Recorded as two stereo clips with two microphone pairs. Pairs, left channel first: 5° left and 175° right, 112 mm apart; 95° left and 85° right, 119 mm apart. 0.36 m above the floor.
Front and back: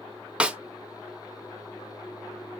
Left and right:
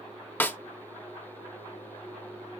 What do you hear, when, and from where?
0.4 s a snare drum: 130° left, 0.8 m